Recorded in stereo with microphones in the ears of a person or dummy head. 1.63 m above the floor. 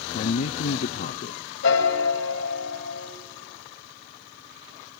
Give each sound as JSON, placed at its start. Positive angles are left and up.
{"t": 0.1, "sound": "a man speaking", "side_deg": 45, "distance_m": 0.7}
{"t": 1.6, "sound": "a piano", "side_deg": 75, "distance_m": 3.5}